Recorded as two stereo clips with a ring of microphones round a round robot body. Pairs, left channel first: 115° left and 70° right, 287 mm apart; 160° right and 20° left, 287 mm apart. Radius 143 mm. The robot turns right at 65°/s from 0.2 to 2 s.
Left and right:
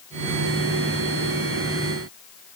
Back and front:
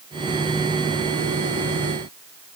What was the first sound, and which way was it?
Only background noise.